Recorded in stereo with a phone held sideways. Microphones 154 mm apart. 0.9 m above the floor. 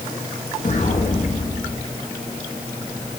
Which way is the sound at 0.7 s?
55° left (ahead or behind).